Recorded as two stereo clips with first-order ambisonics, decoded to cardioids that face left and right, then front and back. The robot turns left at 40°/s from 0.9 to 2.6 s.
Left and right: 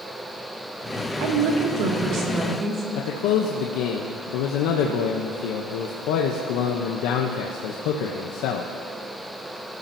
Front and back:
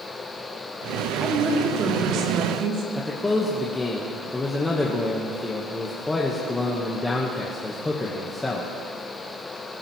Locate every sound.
1.2 s a woman speaking: 100° right, 3 m; by 2.8 s 155° right, 3 m
2.9 s a man speaking: 80° left, 1.1 m